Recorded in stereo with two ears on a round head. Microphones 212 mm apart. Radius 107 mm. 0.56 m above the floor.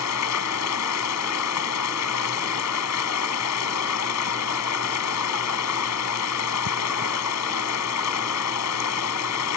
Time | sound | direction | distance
0.0 | running water | 80° left | ?